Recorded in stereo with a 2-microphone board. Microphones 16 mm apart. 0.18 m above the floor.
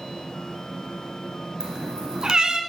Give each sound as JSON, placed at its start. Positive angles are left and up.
{"t": 1.6, "sound": "a cat meowing", "side_deg": -50, "distance_m": 1.1}